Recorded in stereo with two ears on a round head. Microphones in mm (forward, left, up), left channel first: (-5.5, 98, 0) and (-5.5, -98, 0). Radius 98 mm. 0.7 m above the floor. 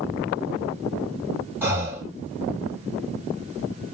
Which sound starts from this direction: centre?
Breathing, at 1.6 s.